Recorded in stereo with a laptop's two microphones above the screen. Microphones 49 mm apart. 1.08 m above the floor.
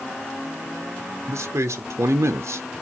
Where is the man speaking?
85° right, 0.8 m.